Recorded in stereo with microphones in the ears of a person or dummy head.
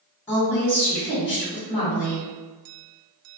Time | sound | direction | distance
0.3 | a woman speaking | 20° left (ahead or behind) | 1.5 m